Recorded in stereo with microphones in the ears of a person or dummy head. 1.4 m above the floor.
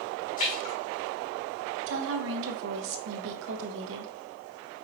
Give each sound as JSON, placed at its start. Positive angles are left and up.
{"t": 0.4, "sound": "a splash", "side_deg": 40, "distance_m": 2.5}
{"t": 1.9, "sound": "a woman speaking", "side_deg": -75, "distance_m": 1.1}